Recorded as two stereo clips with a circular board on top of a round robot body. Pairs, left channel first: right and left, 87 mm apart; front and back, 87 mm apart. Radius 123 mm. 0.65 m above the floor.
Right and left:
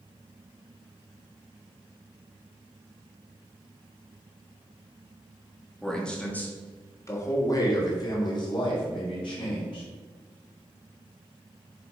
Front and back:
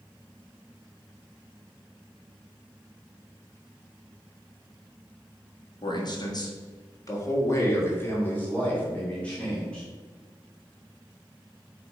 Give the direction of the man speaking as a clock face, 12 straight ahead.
12 o'clock.